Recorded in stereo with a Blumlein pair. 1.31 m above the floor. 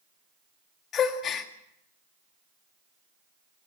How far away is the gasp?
About 2.0 m.